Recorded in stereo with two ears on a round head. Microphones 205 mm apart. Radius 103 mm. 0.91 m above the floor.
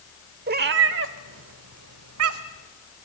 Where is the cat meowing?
45° right (ahead or behind), 1.0 m; by 2.6 s 65° right (ahead or behind), 1.5 m.